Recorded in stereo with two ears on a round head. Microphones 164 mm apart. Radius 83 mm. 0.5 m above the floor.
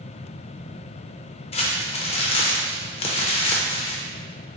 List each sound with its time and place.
1.5 s crumpling: 35° left (ahead or behind), 0.5 m